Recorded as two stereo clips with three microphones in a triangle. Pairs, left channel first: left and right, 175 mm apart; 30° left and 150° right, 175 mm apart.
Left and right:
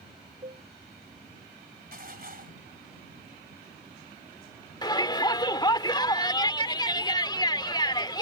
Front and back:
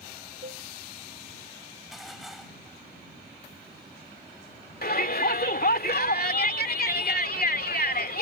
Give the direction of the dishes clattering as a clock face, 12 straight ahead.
2 o'clock.